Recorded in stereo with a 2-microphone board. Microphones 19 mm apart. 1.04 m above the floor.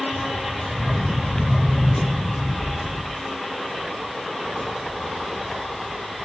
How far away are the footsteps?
About 1.0 m.